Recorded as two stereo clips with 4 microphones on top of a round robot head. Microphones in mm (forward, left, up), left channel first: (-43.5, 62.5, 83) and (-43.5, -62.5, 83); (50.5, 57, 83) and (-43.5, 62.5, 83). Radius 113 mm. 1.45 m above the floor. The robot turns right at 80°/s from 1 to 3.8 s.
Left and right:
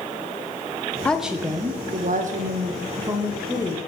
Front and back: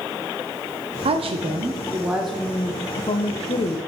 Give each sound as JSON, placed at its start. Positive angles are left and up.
{"t": 1.1, "sound": "a woman speaking", "azimuth_deg": 170, "distance_m": 0.7}